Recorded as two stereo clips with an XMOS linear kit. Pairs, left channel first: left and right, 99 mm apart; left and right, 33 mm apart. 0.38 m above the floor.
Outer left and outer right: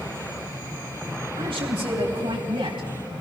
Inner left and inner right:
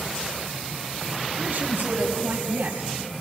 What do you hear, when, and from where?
1.4 s a man speaking: 65° right (ahead or behind), 4 m; by 3.2 s 60° right (ahead or behind), 2.5 m